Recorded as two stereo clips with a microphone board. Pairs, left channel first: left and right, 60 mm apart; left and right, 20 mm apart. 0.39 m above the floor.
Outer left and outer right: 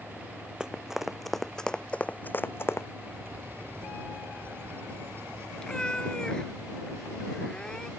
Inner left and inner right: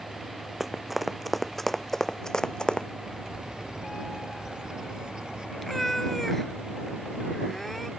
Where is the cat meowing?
15° left (ahead or behind).